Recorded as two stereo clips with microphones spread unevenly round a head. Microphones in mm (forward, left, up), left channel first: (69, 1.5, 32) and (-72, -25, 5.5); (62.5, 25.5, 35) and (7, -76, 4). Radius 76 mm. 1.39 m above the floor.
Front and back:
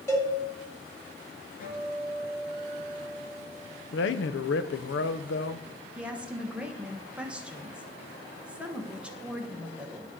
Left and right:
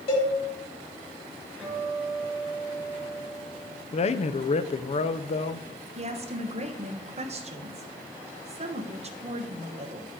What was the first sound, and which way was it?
A cowbell, 75° left.